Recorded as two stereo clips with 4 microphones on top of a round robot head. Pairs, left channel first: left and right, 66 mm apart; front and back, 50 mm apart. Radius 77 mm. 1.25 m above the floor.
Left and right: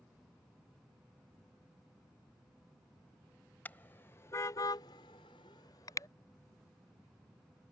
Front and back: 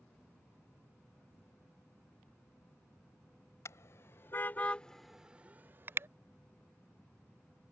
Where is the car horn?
25° left; by 6.1 s 145° left.